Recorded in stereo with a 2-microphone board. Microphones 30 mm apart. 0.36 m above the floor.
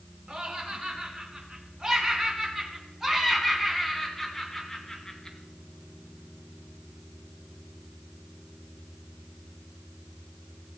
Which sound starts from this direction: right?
Laughter, at 0.3 s.